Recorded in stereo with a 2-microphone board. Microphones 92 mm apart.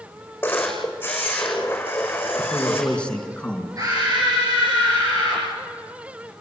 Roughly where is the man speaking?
Centre.